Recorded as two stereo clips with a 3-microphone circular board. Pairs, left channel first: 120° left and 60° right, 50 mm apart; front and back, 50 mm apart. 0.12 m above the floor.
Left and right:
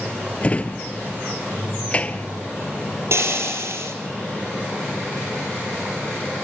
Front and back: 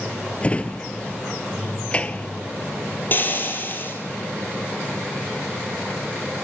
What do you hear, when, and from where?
0.4 s a drawer: 60° left, 0.7 m
3.1 s frying: 45° right, 4 m